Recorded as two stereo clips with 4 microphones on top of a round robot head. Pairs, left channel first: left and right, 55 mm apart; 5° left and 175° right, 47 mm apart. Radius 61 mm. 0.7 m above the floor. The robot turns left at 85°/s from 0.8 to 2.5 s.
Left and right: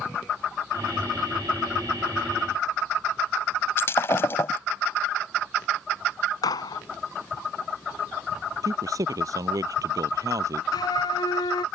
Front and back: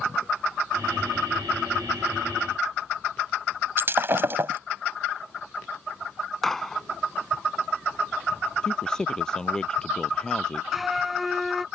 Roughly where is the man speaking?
Right.